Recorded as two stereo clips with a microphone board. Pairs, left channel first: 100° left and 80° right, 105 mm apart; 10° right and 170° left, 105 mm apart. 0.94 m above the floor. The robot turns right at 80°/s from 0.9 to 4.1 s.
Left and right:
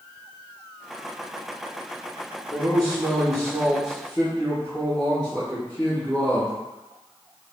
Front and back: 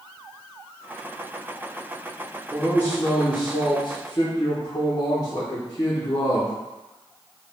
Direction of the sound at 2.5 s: 105° right.